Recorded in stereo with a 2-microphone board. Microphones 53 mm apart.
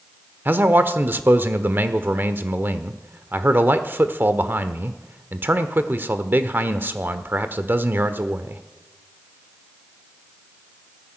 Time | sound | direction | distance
0.5 | a man speaking | 40° right (ahead or behind) | 1.1 m